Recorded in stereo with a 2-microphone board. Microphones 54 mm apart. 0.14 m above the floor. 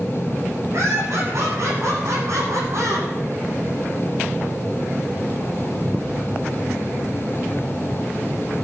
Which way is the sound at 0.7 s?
50° right (ahead or behind).